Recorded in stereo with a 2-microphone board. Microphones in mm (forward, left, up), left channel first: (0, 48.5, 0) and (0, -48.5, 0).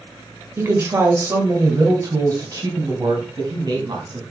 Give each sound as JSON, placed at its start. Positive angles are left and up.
{"t": 0.6, "sound": "a woman speaking", "side_deg": -25, "distance_m": 1.6}